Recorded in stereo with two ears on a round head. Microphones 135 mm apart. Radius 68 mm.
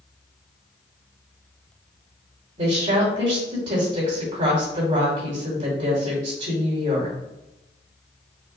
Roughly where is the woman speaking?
Right.